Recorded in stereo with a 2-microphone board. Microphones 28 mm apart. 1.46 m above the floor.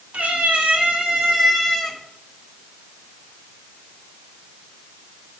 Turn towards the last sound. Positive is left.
turn(degrees=10)  # may be behind; listen again after turning